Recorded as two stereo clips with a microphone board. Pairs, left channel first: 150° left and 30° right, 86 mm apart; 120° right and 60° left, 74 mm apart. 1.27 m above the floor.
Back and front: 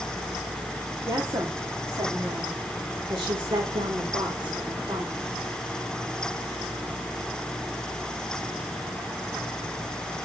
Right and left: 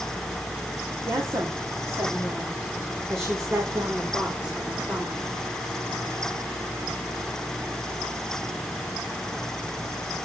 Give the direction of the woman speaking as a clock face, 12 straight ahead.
11 o'clock.